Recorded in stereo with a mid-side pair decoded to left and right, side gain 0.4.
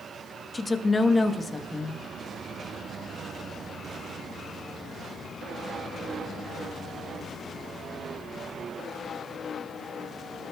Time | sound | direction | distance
0.5 | a woman speaking | 25° left | 1.1 m